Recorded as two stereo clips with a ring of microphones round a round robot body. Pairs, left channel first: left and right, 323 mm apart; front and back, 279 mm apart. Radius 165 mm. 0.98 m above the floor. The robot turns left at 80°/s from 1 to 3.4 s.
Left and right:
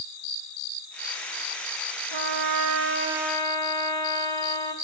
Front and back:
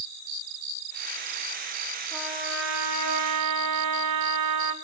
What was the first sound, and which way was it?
A trumpet, 85° right.